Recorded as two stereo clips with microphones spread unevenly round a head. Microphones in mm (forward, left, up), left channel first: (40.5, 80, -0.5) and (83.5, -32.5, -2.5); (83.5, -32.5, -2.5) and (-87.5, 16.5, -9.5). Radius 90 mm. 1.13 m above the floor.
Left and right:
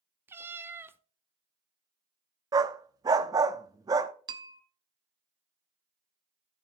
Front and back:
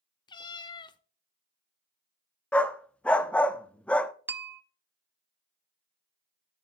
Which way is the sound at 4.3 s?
120° right.